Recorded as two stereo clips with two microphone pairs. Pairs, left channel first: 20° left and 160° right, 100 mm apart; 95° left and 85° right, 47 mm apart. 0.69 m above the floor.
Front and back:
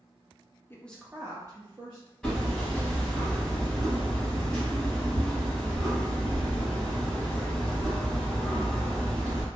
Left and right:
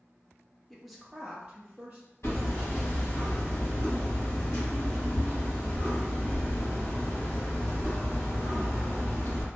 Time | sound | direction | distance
0.7 | a woman speaking | 20° left | 0.5 m
2.2 | hammering | 105° left | 1.6 m